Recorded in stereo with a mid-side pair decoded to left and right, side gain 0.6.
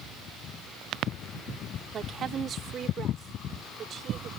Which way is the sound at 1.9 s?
45° right.